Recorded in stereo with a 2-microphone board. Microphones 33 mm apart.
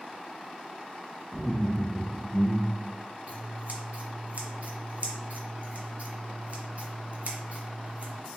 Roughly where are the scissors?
Right.